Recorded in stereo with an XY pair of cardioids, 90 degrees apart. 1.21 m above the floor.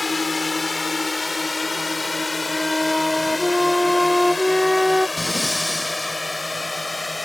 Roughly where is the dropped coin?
No dropped coin in this recording.